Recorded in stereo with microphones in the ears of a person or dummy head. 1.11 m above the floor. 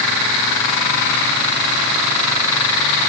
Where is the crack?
No crack in this recording.